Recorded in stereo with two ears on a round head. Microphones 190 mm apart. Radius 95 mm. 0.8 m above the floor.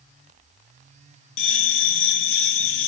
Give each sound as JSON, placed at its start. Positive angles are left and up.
{"t": 1.4, "sound": "a bell", "side_deg": 60, "distance_m": 0.8}